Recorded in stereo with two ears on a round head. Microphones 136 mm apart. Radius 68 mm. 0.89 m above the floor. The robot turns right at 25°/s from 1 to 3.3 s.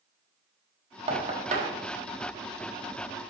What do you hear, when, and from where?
1.1 s knocking: 40° right (ahead or behind), 1.5 m; by 1.8 s 55° right (ahead or behind), 1.5 m